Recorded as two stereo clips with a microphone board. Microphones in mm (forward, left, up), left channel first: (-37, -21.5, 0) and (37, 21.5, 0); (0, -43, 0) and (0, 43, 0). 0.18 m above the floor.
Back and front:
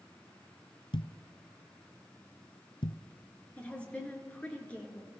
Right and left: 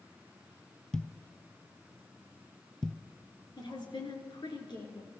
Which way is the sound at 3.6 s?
75° right.